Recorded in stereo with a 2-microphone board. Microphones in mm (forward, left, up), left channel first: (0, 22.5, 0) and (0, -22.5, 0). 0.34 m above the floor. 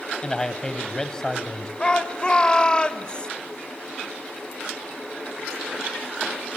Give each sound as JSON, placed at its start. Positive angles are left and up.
{"t": 0.2, "sound": "a man speaking", "side_deg": 20, "distance_m": 1.5}
{"t": 1.8, "sound": "a shout", "side_deg": 25, "distance_m": 1.4}